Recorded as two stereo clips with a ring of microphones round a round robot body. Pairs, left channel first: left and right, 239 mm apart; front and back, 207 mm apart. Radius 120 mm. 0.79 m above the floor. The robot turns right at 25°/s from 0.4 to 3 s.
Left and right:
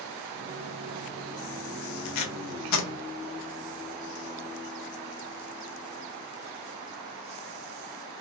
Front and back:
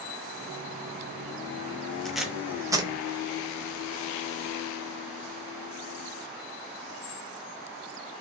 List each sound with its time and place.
2.0 s tape being pulled: 90° left, 0.6 m; by 2.9 s 110° left, 0.6 m